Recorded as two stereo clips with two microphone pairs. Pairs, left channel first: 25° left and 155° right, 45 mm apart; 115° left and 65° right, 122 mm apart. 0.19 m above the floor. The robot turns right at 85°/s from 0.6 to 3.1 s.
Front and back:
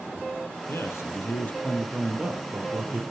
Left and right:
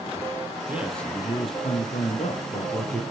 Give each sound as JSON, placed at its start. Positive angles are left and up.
{"t": 0.7, "sound": "a man speaking", "azimuth_deg": 10, "distance_m": 4.0}